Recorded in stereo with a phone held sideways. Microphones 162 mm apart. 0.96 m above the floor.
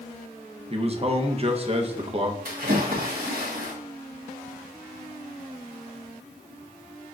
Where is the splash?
65° right (ahead or behind), 1.3 m.